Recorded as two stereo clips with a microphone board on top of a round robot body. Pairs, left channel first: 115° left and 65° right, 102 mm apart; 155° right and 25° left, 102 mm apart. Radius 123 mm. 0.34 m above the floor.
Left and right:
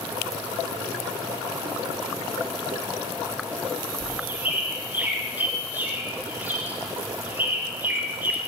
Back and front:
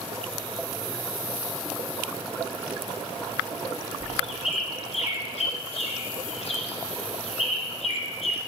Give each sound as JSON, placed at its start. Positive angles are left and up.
{"t": 4.0, "sound": "a bird", "azimuth_deg": -145, "distance_m": 2.0}